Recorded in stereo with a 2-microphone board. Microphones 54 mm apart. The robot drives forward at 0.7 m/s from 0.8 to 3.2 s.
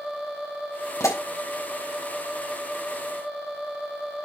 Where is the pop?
80° left, 5.5 m; by 1.2 s 75° left (ahead or behind), 5.5 m.